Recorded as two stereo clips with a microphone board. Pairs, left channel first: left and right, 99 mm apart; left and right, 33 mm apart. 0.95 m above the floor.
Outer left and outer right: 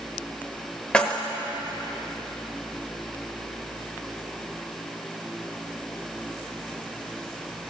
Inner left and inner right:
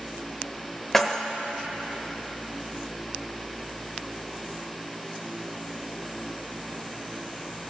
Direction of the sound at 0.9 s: 10° left (ahead or behind).